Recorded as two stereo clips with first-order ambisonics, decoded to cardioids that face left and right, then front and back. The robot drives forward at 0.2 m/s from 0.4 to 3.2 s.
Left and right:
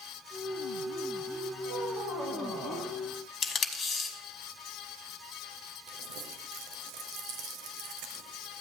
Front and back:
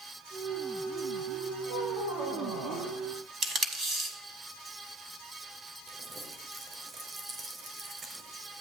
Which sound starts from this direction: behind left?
Tape being pulled, at 3.4 s.